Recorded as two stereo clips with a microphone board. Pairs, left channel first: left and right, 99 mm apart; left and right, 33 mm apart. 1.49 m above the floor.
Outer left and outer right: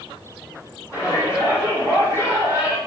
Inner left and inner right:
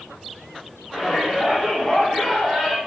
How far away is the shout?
About 3.5 m.